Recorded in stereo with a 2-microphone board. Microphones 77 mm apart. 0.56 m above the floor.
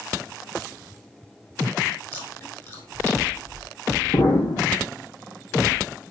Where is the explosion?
75° left (ahead or behind), 5 m.